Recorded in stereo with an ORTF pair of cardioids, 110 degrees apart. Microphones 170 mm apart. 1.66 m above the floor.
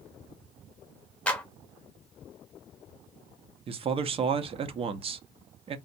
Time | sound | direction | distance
1.3 | a clap | 5° left | 0.8 m
3.7 | a man speaking | 35° right | 0.6 m